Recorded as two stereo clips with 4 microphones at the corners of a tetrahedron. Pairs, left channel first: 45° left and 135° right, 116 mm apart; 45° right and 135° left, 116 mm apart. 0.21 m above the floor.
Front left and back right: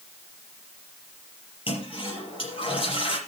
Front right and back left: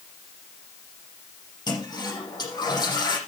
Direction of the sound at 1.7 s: 5° left.